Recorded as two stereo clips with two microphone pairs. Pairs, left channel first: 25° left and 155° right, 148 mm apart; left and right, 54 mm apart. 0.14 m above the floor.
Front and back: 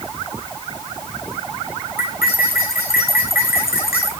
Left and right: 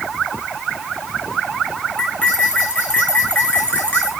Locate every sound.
2.0 s cutlery clinking: 20° left, 6 m